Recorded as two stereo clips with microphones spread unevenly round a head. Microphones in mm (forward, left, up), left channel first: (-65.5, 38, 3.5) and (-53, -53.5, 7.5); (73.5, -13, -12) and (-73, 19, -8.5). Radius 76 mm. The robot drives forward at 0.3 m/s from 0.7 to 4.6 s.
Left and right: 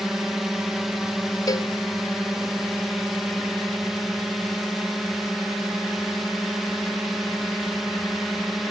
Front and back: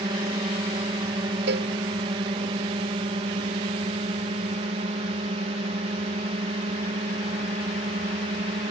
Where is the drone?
165° right; by 8.7 s 170° right.